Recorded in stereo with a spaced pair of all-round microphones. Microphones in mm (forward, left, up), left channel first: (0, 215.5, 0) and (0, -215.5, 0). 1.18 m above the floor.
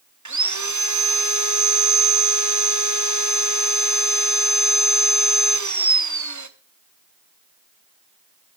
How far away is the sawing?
About 0.8 m.